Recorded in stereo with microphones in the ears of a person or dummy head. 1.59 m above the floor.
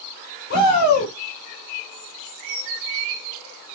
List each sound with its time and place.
0.5 s a shout: 70° left (ahead or behind), 5 m